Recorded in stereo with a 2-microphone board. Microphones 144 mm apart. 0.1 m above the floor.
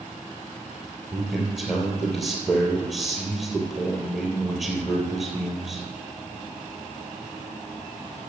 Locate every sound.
1.1 s a man speaking: centre (ahead or behind), 3 m